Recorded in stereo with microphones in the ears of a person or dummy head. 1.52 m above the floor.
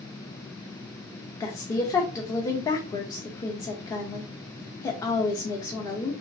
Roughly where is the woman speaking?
Centre.